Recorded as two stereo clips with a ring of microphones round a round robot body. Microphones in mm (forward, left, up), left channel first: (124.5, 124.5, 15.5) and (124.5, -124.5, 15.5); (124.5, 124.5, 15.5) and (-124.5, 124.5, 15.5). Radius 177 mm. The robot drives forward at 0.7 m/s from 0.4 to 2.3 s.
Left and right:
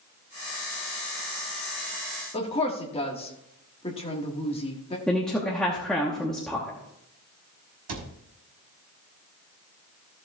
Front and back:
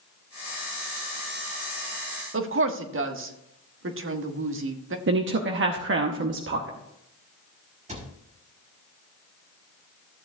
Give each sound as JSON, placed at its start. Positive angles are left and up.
{"t": 2.3, "sound": "a woman speaking", "azimuth_deg": 160, "distance_m": 1.4}
{"t": 5.1, "sound": "a woman speaking", "azimuth_deg": 175, "distance_m": 0.9}
{"t": 7.9, "sound": "a cupboard door", "azimuth_deg": -110, "distance_m": 1.5}